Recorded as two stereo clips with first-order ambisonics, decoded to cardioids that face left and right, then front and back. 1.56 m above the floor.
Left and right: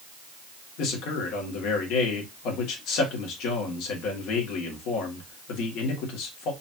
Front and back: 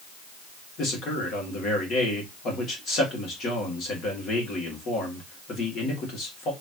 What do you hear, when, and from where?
0.8 s a man speaking: 55° left, 1.9 m